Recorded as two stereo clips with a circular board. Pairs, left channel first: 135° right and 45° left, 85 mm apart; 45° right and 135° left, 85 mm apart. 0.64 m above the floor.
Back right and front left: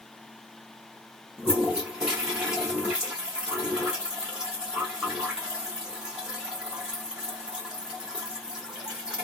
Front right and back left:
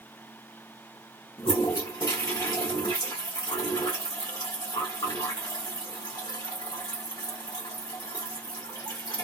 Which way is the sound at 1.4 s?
35° right.